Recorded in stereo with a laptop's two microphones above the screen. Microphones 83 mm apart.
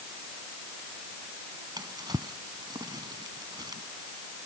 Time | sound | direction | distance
1.8 | a drawer | 55° right (ahead or behind) | ?